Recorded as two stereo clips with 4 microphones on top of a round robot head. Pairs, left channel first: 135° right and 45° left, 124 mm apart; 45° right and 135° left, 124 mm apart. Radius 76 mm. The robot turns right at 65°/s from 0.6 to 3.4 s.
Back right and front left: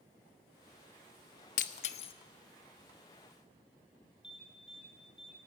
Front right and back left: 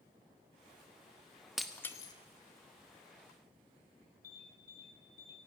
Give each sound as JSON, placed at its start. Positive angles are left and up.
{"t": 1.6, "sound": "breaking glass", "azimuth_deg": -135, "distance_m": 0.8}
{"t": 4.2, "sound": "an alarm", "azimuth_deg": -40, "distance_m": 9.0}